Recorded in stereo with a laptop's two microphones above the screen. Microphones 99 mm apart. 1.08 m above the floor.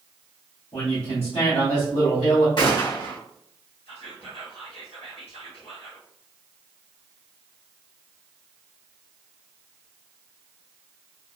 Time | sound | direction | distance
0.7 | a man speaking | 85° left | 1.6 m
2.6 | a gunshot | 50° left (ahead or behind) | 1.4 m
3.9 | whispering | 75° left (ahead or behind) | 1.3 m